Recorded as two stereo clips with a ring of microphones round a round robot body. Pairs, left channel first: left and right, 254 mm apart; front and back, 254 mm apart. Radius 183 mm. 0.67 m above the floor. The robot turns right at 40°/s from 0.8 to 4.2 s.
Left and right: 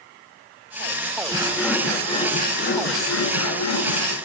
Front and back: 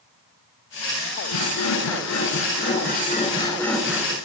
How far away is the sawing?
About 9.5 m.